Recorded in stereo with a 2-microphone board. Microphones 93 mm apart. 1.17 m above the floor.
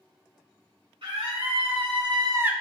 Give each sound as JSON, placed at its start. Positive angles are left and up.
{"t": 1.0, "sound": "a scream", "side_deg": -80, "distance_m": 2.0}